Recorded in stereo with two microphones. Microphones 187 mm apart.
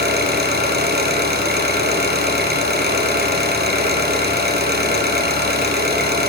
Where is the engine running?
60° right (ahead or behind), 2 m.